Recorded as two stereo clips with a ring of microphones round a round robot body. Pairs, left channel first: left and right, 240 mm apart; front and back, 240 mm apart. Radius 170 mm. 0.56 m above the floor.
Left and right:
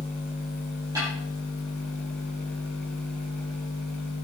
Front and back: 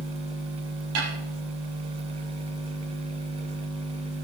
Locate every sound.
0.9 s a snare drum: 170° right, 6 m